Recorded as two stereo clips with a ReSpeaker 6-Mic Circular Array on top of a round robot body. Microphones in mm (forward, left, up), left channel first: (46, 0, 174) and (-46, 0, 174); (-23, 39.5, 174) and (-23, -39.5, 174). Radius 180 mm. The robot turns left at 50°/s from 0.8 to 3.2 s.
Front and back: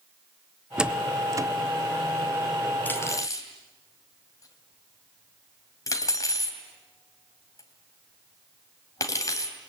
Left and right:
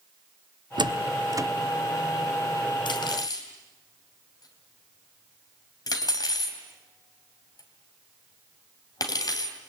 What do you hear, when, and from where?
0.8 s a door slam: 100° right, 1.4 m; by 1.5 s 135° right, 1.4 m
2.9 s cutlery clinking: 70° left, 3 m; by 9.6 s 55° left, 3 m